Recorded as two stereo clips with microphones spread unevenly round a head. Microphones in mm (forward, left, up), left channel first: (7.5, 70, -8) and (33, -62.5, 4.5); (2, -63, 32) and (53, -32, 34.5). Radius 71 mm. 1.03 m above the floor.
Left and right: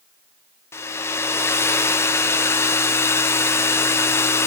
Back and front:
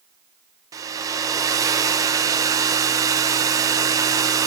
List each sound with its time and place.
0.7 s a hair dryer: 35° left, 0.5 m